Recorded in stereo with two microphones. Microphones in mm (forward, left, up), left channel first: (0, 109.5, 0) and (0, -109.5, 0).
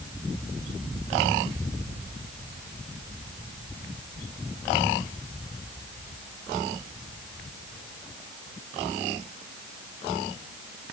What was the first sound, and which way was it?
Only background noise.